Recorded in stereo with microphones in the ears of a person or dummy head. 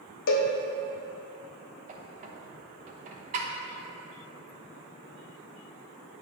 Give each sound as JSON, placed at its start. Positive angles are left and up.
{"t": 0.3, "sound": "a cowbell", "side_deg": 60, "distance_m": 0.9}
{"t": 1.9, "sound": "a squeak", "side_deg": -40, "distance_m": 0.9}